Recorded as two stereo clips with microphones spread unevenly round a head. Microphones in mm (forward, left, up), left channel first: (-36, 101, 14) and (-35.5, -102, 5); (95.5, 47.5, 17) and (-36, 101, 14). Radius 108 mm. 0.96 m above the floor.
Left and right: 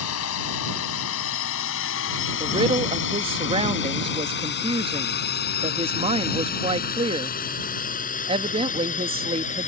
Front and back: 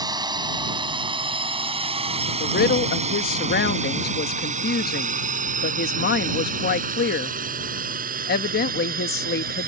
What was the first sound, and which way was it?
A drone, 95° left.